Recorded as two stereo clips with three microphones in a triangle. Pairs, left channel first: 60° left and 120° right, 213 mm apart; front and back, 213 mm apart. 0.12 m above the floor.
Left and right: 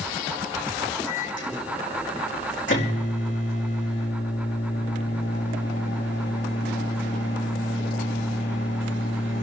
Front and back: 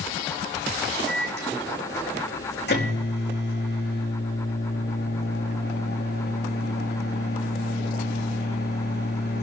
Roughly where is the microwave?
Ahead left.